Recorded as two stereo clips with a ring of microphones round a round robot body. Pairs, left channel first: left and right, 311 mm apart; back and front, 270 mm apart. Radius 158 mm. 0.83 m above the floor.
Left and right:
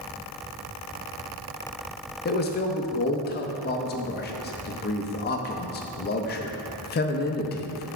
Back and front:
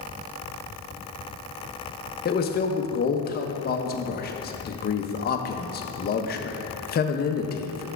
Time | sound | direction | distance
2.2 | a man speaking | 140° left | 0.6 m